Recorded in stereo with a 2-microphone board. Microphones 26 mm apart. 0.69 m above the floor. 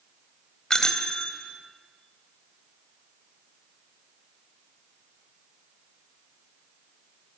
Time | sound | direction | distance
0.7 | a bicycle bell | 25° left (ahead or behind) | 2.5 m